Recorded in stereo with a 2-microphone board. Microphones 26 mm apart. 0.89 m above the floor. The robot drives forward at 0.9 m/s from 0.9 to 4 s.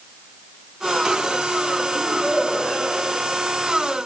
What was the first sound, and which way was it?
A child speaking, 15° right (ahead or behind).